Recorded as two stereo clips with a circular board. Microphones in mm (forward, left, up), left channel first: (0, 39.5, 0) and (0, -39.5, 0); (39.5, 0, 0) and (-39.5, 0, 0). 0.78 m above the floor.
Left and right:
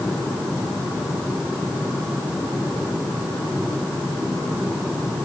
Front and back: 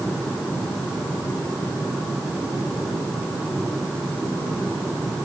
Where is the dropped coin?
No dropped coin in this recording.